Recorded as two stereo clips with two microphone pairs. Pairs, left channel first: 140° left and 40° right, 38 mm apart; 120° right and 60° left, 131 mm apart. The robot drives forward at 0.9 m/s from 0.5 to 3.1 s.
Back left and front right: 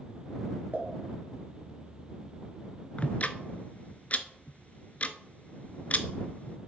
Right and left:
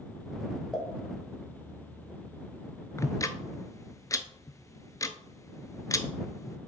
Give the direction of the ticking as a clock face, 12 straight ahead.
6 o'clock.